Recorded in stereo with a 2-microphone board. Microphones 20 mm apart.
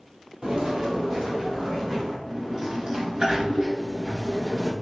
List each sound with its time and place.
0.4 s footsteps: 45° right (ahead or behind), 1.3 m; by 2.2 s 10° right (ahead or behind), 2 m
2.3 s a sliding door: 40° right (ahead or behind), 0.9 m